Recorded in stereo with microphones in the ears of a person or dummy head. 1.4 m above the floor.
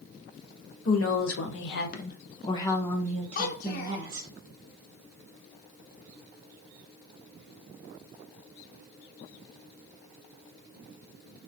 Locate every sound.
0.8 s a woman speaking: 85° left, 1.0 m; by 4.3 s 25° right (ahead or behind), 1.2 m
3.4 s a child speaking: 50° left (ahead or behind), 0.7 m